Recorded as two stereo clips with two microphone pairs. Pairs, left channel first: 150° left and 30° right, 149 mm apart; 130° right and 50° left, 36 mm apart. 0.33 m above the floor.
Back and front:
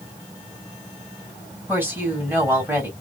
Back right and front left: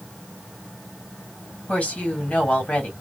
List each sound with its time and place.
1.7 s a woman speaking: 100° right, 2.0 m